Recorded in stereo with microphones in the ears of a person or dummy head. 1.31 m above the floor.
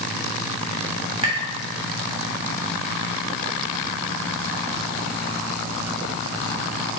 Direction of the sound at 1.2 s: 40° right (ahead or behind).